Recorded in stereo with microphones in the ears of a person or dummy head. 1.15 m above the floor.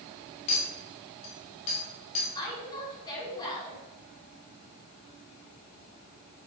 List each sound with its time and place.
0.5 s a clink: 40° left (ahead or behind), 1.8 m
2.4 s a woman speaking: 25° left (ahead or behind), 3.5 m